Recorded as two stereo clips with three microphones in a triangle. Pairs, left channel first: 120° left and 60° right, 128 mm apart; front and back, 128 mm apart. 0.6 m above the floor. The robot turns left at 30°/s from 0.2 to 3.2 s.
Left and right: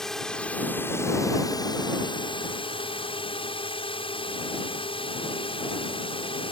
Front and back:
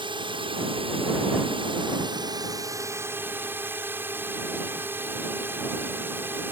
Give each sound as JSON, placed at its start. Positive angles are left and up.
{"t": 0.0, "sound": "a drone", "azimuth_deg": -155}